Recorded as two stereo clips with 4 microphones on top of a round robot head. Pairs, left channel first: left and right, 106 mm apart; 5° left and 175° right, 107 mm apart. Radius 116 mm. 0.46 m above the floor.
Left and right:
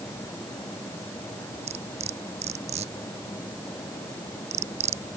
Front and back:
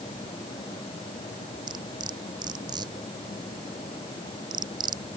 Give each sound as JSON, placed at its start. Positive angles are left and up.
{"t": 1.7, "sound": "cutlery clinking", "azimuth_deg": -120}